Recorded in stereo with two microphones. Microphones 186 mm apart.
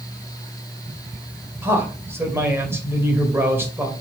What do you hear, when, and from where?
1.6 s a man speaking: 10° right (ahead or behind), 2 m